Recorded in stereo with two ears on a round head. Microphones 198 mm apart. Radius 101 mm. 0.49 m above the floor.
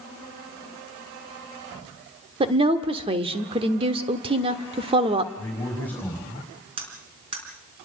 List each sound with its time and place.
2.4 s a woman speaking: 25° right (ahead or behind), 1.4 m
5.4 s a man speaking: 10° left (ahead or behind), 4.5 m
6.8 s cutlery clinking: 25° right (ahead or behind), 4 m